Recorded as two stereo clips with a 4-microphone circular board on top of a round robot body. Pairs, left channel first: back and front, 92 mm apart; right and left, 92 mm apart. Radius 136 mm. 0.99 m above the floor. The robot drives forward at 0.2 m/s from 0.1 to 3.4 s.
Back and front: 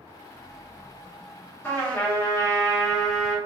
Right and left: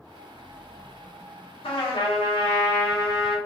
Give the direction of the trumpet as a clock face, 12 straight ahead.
4 o'clock.